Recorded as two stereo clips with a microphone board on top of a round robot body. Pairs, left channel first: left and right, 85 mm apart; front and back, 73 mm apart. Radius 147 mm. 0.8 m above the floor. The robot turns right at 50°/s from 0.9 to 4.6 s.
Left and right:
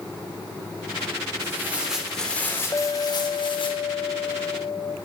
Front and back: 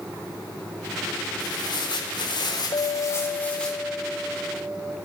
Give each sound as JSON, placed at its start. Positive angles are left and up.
{"t": 1.4, "sound": "tearing paper", "azimuth_deg": -30, "distance_m": 4.0}
{"t": 2.7, "sound": "a clink", "azimuth_deg": 30, "distance_m": 1.1}